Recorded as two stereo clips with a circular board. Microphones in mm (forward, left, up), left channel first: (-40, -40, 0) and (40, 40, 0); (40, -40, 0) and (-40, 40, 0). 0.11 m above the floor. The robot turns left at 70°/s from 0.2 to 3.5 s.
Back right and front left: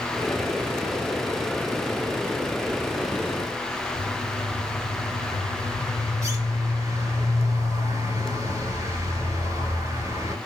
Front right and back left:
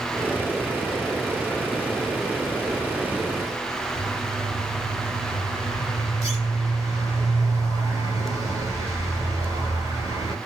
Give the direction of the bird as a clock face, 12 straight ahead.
9 o'clock.